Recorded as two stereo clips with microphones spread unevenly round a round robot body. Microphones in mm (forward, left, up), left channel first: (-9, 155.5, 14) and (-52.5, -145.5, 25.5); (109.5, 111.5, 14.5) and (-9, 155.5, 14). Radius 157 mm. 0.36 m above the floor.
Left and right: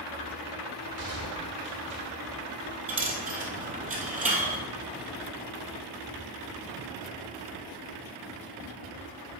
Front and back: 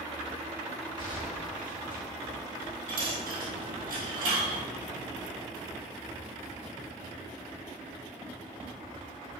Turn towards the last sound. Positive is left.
turn(degrees=-165)